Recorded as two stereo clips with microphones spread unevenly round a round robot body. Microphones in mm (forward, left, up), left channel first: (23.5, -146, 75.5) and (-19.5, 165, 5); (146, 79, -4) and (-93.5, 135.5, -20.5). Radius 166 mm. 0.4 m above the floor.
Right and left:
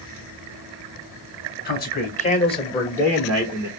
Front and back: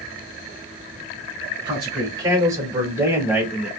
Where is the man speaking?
140° right, 1.4 m; by 3.7 s 100° left, 1.2 m.